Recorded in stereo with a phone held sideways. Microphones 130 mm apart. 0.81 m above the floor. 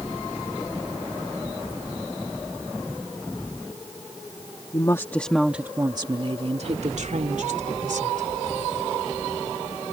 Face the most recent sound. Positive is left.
turn(degrees=-75)  # may be behind; listen again after turning